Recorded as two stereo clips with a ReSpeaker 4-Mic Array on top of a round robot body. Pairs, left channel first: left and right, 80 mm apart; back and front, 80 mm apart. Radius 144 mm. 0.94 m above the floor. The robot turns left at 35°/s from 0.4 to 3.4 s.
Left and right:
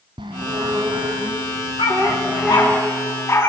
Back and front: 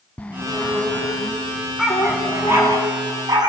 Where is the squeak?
110° right, 0.9 m; by 2.8 s 170° left, 0.9 m.